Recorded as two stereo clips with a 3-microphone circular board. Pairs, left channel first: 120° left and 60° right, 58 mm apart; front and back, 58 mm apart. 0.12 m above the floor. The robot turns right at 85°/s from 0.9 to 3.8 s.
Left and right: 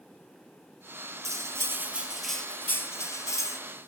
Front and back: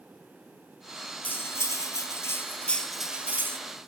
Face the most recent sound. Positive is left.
turn(degrees=160)